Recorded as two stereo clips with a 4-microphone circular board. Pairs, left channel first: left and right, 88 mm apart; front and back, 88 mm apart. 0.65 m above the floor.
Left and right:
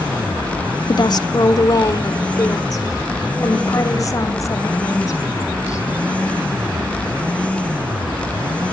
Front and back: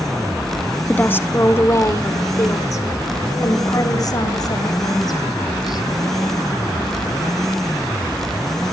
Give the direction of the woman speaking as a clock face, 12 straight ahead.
10 o'clock.